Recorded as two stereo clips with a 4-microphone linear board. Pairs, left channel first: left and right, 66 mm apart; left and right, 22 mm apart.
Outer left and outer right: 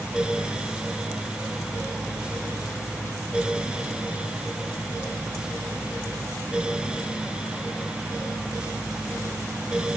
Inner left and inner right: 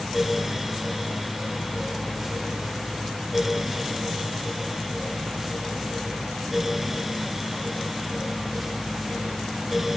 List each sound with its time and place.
Only background noise.